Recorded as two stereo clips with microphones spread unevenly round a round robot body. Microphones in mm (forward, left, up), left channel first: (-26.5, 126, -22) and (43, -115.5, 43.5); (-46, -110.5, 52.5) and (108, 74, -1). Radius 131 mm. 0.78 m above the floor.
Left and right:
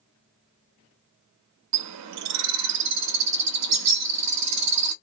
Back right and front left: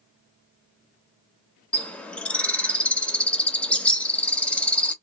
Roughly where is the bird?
Ahead right.